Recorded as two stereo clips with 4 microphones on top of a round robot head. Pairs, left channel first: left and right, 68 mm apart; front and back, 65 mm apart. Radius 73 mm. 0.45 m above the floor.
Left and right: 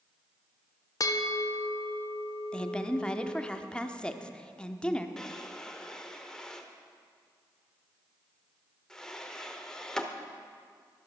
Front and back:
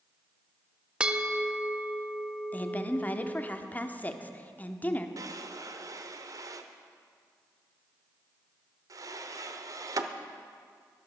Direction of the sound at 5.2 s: 170° left.